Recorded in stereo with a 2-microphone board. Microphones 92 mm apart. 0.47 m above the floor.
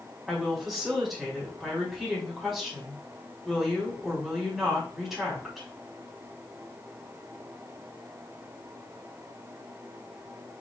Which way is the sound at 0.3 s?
Centre (ahead or behind).